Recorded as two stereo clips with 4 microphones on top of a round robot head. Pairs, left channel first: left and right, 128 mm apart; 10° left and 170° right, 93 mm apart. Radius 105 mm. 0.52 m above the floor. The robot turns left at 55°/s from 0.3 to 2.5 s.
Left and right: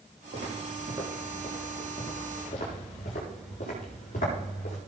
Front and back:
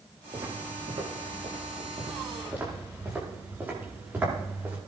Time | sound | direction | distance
0.3 | footsteps | 120° right | 8 m